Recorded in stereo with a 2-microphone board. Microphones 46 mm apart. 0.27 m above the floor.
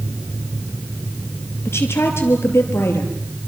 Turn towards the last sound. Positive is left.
turn(degrees=70)  # may be behind; listen again after turning